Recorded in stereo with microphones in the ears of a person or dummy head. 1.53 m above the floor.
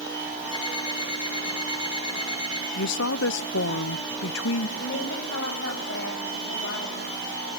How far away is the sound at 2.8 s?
About 0.9 m.